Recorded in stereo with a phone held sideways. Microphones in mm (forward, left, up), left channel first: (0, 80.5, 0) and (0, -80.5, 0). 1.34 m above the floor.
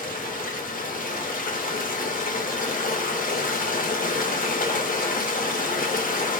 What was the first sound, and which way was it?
Running water, 55° left (ahead or behind).